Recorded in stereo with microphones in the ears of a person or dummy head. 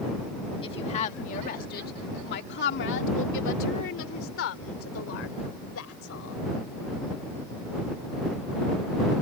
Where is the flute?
I don't hear a flute.